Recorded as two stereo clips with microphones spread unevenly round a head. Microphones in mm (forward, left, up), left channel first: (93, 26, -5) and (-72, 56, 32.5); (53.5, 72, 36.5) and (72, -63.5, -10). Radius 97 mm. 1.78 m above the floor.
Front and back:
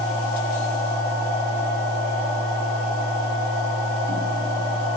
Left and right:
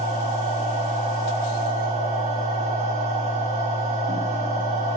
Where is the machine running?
40° right, 2.5 m.